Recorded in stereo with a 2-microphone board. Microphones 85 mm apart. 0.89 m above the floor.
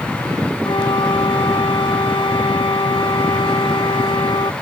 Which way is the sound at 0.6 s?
85° left.